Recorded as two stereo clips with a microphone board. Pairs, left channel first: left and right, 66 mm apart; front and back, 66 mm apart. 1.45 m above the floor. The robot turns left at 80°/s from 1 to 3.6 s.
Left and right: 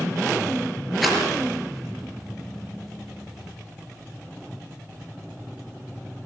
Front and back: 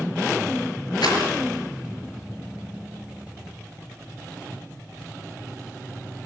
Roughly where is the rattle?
Ahead.